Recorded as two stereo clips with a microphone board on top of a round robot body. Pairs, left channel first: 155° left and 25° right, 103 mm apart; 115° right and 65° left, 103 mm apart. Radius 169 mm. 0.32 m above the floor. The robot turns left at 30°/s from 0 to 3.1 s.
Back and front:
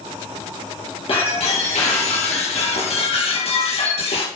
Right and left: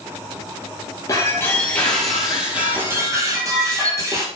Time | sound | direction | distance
1.1 | breaking glass | 170° right | 3.5 m